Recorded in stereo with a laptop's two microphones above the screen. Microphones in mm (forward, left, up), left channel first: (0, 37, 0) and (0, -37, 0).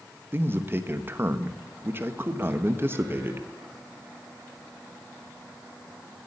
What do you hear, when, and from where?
0.3 s a man speaking: 30° right (ahead or behind), 1.0 m